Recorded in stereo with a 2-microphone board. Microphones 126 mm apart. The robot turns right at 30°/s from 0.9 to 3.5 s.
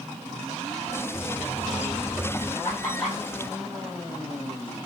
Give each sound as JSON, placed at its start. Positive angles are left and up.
{"t": 1.1, "sound": "a buzzer", "azimuth_deg": -55, "distance_m": 1.4}
{"t": 2.6, "sound": "laughter", "side_deg": 20, "distance_m": 8.0}